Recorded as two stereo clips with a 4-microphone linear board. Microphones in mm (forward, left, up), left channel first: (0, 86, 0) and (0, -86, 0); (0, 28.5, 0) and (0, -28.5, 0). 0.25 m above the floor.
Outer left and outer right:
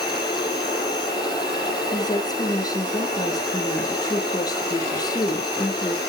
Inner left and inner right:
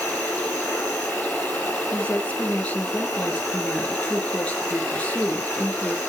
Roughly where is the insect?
Left.